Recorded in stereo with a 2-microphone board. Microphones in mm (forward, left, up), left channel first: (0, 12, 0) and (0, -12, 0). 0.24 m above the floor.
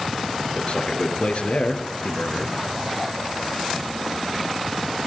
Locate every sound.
0.6 s a man speaking: 60° left (ahead or behind), 4 m